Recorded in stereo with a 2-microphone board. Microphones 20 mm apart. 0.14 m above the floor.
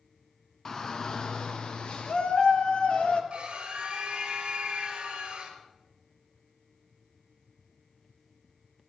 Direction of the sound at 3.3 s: 55° right (ahead or behind).